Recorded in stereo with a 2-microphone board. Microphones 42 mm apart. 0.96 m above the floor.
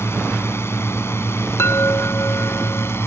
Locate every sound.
0.0 s a drone: 80° left
1.6 s a chime: 85° left